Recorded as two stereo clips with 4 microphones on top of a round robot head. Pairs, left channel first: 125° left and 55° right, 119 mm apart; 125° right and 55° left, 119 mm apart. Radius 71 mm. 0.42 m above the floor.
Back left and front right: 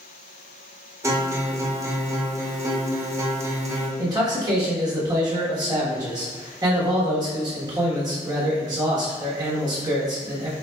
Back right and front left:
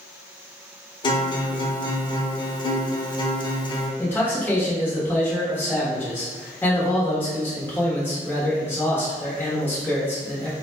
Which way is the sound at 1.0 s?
105° right.